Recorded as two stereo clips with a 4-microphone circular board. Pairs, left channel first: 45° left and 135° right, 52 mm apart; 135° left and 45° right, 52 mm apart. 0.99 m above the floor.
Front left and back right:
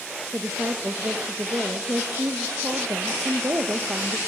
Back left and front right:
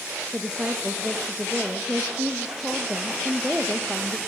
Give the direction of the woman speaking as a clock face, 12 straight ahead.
4 o'clock.